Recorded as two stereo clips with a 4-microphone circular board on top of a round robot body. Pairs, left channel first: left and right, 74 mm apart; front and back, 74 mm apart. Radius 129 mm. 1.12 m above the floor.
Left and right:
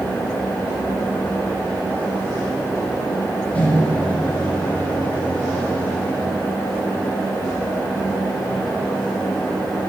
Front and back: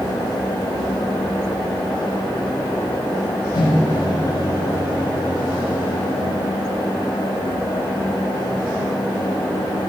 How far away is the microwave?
About 6 m.